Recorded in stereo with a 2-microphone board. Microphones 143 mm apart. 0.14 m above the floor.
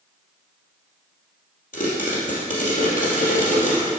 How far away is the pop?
About 3 m.